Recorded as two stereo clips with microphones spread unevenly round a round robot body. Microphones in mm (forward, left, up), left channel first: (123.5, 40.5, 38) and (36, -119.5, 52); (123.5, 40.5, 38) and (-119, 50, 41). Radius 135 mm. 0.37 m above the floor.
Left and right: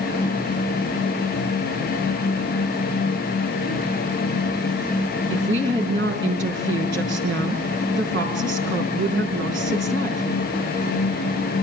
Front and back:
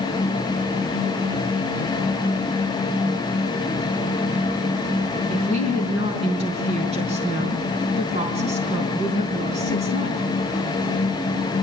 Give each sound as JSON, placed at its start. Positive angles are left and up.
{"t": 5.3, "sound": "a woman speaking", "azimuth_deg": -115, "distance_m": 4.5}